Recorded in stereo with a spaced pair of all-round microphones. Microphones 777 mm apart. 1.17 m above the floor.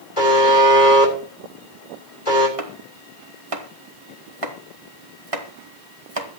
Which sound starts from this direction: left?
A buzzer, at 0.2 s.